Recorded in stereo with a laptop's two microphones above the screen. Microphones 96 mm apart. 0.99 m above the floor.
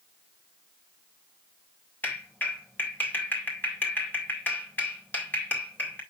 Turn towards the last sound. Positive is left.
turn(degrees=20)  # may be behind; listen again after turning